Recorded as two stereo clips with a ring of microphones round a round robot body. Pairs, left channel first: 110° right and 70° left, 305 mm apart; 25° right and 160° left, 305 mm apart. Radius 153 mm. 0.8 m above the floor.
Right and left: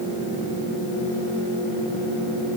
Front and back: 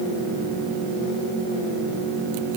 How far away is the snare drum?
No snare drum in this recording.